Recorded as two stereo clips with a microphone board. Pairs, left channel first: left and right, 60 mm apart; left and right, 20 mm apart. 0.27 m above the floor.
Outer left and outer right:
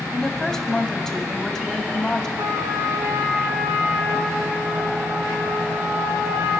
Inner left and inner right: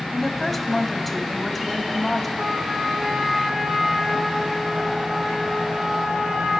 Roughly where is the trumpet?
Right.